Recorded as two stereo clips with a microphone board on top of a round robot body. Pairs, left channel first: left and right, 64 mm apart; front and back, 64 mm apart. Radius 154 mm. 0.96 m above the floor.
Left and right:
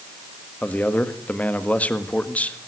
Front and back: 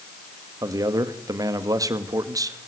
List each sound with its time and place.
0.6 s a man speaking: 155° left, 1.9 m